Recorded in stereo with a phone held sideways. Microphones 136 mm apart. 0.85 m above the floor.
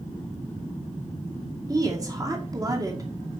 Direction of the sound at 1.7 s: 25° right (ahead or behind).